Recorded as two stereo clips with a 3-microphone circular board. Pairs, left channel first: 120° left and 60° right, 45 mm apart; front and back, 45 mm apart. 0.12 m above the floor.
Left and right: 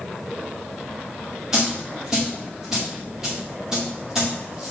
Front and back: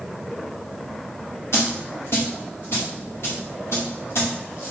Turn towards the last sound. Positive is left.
turn(degrees=15)